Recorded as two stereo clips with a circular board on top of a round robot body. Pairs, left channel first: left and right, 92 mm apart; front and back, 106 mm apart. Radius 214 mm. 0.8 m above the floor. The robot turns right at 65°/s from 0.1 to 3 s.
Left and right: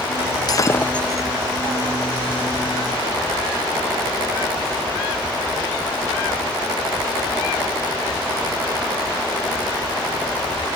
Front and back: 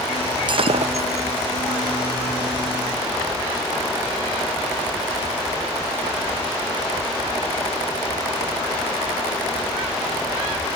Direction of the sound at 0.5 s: 140° left.